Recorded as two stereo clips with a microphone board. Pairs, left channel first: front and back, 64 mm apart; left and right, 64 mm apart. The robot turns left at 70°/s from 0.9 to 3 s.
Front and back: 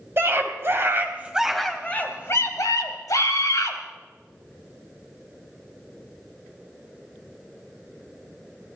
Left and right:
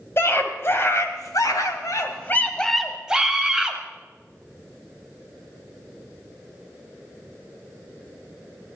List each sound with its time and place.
0.2 s a scream: 135° left, 2.5 m; by 3.8 s 10° right, 2.5 m